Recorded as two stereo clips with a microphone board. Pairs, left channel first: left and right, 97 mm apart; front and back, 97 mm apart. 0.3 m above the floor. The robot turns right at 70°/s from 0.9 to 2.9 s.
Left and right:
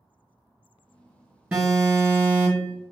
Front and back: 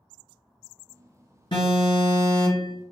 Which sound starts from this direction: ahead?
An alarm, at 1.5 s.